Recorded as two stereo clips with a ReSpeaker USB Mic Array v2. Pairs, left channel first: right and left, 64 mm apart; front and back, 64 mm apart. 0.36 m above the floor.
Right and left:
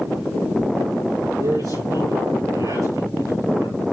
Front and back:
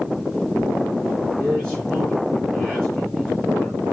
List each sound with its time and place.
1.4 s a man speaking: 85° left, 7 m